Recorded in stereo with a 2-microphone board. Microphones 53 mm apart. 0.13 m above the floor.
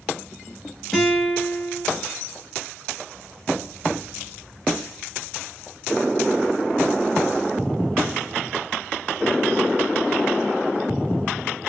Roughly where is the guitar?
Centre.